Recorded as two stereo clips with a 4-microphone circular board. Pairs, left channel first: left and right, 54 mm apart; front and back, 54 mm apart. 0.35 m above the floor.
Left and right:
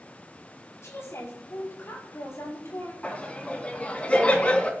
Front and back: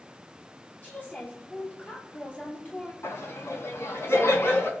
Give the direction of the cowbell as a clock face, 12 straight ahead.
I don't hear a cowbell.